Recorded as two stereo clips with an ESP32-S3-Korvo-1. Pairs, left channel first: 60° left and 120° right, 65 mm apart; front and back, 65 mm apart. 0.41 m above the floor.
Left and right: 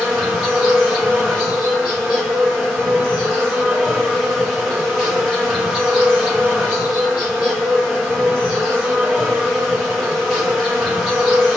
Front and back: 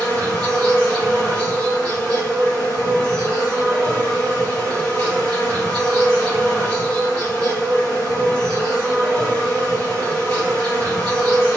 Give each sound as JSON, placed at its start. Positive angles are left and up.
{"t": 0.0, "sound": "an insect", "azimuth_deg": -30, "distance_m": 1.5}